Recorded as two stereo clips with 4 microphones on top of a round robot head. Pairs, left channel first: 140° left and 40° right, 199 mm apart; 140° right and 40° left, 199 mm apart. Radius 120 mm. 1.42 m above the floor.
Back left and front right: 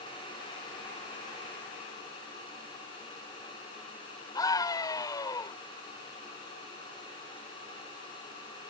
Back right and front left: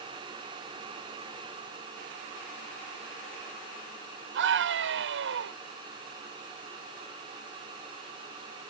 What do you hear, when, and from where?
4.3 s a scream: 65° left